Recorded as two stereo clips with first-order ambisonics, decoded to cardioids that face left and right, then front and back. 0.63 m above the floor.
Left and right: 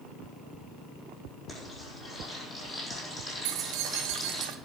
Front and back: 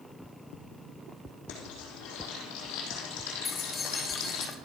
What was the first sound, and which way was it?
Frying, 10° left.